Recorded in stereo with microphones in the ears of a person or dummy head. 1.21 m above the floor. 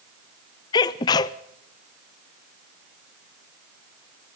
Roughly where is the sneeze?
Left.